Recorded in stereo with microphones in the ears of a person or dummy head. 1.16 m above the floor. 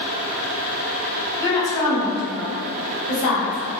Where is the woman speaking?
25° left (ahead or behind), 1.2 m; by 3.8 s 80° left, 1.4 m.